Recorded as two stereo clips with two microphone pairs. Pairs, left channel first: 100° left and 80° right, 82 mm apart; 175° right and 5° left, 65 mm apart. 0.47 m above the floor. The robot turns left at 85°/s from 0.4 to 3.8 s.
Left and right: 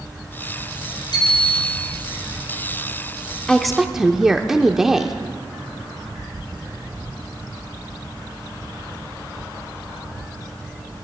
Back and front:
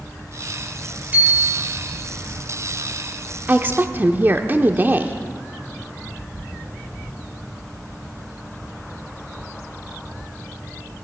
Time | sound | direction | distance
1.1 | a bicycle bell | 70° left | 7 m
3.5 | a woman speaking | 30° left | 0.8 m